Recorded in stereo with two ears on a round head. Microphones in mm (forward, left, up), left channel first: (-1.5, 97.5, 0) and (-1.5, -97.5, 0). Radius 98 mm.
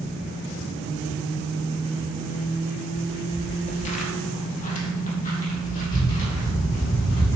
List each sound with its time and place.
3.0 s footsteps: 15° left (ahead or behind), 1.3 m; by 7.4 s 40° left (ahead or behind), 6 m